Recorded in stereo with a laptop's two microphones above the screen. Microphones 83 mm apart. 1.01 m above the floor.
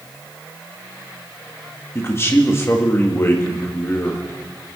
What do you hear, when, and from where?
1.9 s a man speaking: 30° left (ahead or behind), 1.5 m